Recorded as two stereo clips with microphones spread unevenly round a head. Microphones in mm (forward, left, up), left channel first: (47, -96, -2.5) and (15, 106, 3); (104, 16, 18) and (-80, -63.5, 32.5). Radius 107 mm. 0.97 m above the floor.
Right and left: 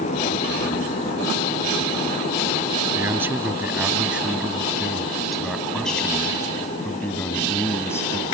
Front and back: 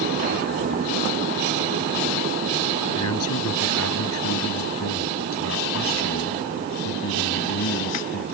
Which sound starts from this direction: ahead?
A man speaking, at 3.0 s.